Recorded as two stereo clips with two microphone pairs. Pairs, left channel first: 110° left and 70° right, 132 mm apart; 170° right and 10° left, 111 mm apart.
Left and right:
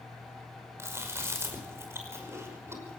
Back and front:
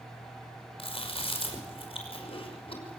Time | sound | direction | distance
0.8 | chewing | 140° right | 5.5 m